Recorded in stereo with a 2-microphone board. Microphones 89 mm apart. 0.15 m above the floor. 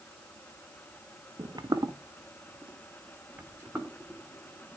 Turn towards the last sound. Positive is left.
turn(degrees=-15)  # may be behind; listen again after turning